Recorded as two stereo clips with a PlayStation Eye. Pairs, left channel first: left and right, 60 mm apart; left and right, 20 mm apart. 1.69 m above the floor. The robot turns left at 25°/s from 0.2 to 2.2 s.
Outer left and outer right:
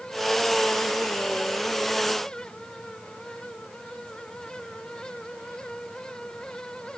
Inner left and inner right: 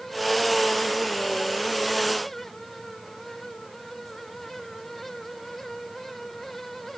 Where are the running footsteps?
I don't hear running footsteps.